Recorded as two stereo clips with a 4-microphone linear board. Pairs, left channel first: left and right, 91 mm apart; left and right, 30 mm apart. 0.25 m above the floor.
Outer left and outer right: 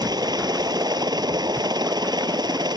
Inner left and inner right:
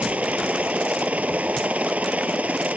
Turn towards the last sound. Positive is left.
turn(degrees=-55)  # may be behind; listen again after turning